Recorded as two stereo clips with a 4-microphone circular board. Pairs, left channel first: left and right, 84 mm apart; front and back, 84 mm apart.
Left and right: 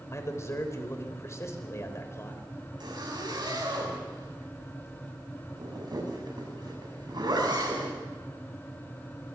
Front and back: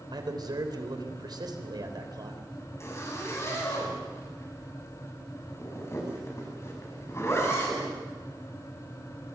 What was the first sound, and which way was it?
A man speaking, 145° left.